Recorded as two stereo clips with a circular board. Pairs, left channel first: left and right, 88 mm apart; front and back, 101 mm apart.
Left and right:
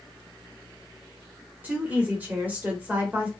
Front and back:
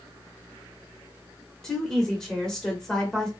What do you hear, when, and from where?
1.6 s a woman speaking: 75° right, 1.1 m